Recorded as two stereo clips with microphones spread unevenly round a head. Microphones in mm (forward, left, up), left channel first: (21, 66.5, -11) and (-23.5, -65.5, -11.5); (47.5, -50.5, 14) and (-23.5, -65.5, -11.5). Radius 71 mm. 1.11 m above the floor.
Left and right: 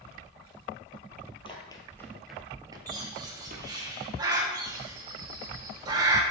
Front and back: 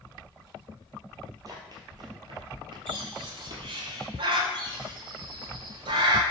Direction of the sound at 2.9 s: 175° right.